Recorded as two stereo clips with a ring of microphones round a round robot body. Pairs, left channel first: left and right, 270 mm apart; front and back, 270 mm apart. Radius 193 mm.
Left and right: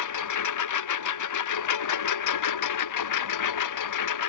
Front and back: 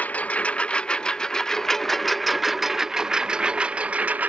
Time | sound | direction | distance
0.0 | a lawn mower | 85° left | ?